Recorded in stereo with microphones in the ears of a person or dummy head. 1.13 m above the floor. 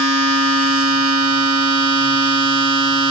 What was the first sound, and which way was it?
A machine running, 75° right (ahead or behind).